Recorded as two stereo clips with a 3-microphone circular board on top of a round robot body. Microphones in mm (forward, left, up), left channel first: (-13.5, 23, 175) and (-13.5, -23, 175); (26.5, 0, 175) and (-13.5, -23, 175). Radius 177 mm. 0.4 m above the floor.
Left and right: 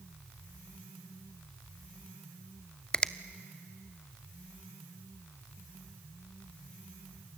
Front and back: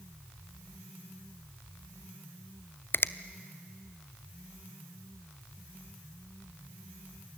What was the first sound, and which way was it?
A finger snap, 30° left.